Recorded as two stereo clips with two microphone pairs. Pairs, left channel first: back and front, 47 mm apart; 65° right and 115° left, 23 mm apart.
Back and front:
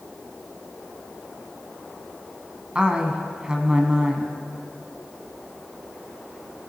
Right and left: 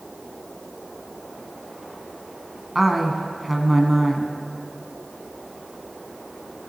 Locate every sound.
2.8 s a woman speaking: 30° left, 1.1 m